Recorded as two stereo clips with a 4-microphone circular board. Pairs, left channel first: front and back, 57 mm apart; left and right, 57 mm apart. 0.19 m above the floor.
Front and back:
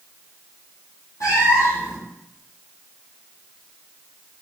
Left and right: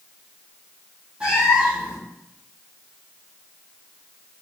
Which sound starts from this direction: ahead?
A cat meowing, at 1.2 s.